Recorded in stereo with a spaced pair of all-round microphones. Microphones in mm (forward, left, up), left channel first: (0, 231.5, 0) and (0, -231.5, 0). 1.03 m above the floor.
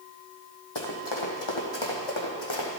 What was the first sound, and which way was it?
Running footsteps, 60° left (ahead or behind).